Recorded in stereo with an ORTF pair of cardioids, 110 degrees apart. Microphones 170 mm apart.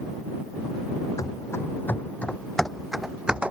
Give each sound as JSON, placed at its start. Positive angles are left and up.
{"t": 1.2, "sound": "running footsteps", "azimuth_deg": 20}